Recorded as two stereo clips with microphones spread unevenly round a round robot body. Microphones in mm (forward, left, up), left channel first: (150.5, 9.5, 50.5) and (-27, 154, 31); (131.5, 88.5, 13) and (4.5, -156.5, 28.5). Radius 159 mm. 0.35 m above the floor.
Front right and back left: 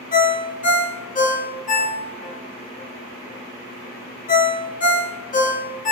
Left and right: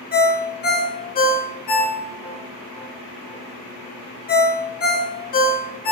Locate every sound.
0.1 s a ringtone: 15° left, 0.6 m